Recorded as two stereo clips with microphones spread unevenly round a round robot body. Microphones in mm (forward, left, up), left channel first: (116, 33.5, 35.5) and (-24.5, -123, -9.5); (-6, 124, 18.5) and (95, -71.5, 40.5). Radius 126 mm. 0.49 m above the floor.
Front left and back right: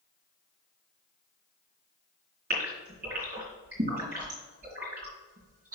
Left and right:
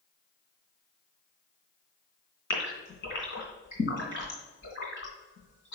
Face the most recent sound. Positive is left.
turn(degrees=165)